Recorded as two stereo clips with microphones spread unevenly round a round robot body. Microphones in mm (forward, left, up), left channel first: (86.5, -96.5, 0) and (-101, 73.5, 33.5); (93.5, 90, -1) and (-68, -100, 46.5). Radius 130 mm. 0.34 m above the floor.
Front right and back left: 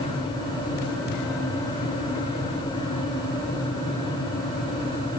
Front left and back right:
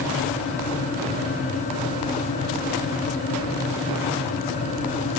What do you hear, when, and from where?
Only background noise.